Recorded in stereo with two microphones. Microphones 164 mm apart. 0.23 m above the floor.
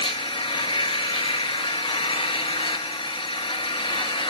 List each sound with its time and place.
0.0 s an engine running: 30° left (ahead or behind), 1.7 m